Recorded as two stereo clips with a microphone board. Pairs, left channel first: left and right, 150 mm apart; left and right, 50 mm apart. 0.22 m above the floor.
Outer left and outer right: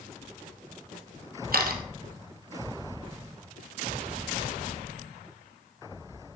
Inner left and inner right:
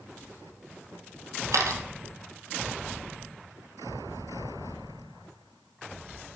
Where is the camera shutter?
85° right, 2 m.